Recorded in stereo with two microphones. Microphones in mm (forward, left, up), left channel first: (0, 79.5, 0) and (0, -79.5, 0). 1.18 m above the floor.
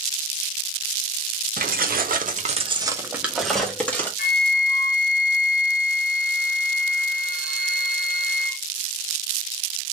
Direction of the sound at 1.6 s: 65° right (ahead or behind).